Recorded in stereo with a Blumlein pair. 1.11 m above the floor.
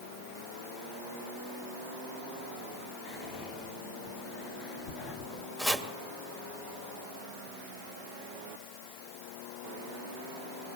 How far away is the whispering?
About 1.7 m.